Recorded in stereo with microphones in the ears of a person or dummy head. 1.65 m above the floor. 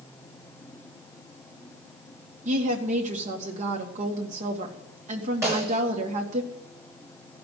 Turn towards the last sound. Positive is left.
turn(degrees=-25)  # may be behind; listen again after turning